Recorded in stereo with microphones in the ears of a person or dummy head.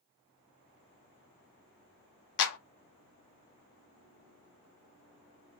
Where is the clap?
65° left (ahead or behind), 0.7 m.